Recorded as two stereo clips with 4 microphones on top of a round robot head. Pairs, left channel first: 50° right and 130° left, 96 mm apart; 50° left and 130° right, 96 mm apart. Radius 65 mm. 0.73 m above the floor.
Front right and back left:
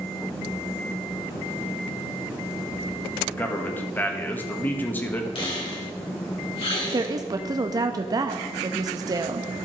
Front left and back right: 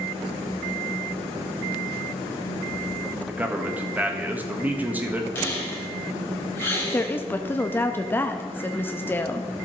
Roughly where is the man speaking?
Right.